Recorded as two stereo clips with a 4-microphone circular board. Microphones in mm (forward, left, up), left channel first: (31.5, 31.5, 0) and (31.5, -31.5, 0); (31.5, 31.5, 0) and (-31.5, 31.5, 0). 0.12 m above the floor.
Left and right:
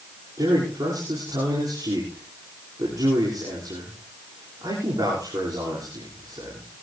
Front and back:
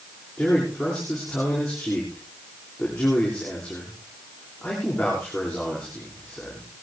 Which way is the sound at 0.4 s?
85° right.